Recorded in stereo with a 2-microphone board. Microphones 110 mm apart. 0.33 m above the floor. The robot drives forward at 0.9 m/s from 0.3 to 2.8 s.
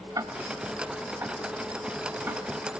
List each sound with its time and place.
0.1 s ticking: 35° right (ahead or behind), 1.5 m; by 2.4 s 15° right (ahead or behind), 3 m